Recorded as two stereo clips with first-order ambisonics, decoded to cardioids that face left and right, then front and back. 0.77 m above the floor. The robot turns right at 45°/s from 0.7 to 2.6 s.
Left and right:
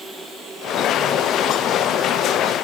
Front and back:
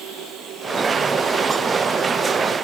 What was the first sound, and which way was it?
Only background noise.